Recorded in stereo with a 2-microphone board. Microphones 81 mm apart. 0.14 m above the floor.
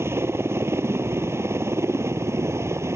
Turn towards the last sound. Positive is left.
turn(degrees=-35)  # may be behind; listen again after turning